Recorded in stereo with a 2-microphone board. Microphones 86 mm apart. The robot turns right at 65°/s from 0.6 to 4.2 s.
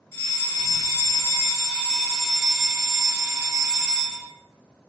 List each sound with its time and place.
0.1 s a fire alarm: 25° left (ahead or behind), 1.4 m; by 4.3 s 20° right (ahead or behind), 1.4 m